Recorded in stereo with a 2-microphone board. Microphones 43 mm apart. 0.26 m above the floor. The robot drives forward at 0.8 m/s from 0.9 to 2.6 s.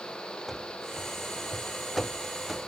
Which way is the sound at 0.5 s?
Centre (ahead or behind).